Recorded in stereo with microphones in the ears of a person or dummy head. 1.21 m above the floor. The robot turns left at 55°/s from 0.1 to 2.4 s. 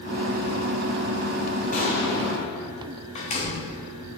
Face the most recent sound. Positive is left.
turn(degrees=30)  # may be behind; listen again after turning